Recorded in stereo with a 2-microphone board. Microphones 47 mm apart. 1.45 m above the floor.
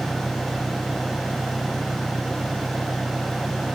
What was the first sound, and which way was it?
An engine running, 35° right (ahead or behind).